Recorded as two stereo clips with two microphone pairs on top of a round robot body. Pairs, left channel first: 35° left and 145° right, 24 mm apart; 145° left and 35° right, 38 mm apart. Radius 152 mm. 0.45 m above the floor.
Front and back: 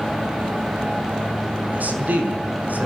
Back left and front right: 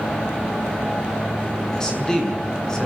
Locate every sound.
1.7 s a man speaking: 140° right, 6.5 m